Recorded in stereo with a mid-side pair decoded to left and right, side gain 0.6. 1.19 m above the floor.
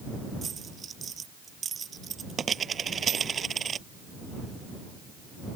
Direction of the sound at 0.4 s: 35° right.